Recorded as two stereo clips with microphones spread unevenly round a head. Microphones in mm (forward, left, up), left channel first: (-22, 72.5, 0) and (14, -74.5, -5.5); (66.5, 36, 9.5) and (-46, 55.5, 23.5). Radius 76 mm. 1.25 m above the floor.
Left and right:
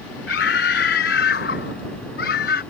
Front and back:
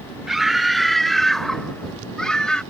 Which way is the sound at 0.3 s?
85° left.